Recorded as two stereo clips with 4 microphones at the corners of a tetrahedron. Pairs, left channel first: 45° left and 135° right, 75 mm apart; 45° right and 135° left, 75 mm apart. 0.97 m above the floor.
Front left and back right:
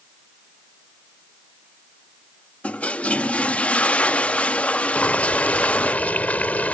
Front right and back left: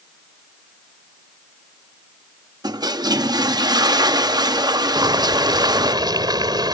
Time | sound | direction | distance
2.6 | a toilet flushing | 115° left | ?
5.0 | boiling | 115° left | ?